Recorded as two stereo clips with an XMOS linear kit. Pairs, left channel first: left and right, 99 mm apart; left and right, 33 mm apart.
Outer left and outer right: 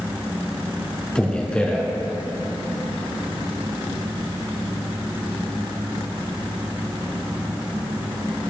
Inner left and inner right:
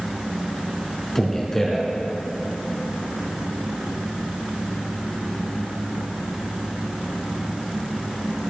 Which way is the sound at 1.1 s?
10° left (ahead or behind).